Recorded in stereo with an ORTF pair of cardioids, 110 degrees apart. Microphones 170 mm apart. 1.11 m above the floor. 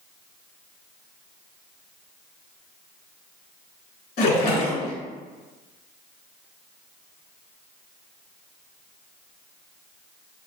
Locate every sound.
4.2 s a splash: 70° left, 1.9 m